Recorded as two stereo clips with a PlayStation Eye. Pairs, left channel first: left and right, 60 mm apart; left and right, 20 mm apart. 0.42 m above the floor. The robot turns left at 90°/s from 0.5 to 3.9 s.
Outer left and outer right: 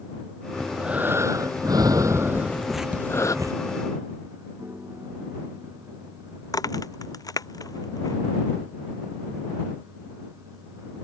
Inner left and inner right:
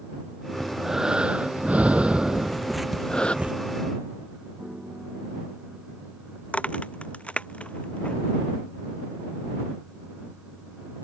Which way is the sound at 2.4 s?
35° left.